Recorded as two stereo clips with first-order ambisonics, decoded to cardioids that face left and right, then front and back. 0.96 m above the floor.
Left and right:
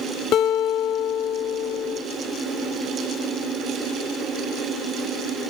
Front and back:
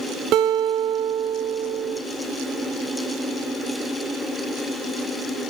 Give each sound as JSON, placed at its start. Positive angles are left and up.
{"t": 0.3, "sound": "a guitar", "azimuth_deg": 135, "distance_m": 0.7}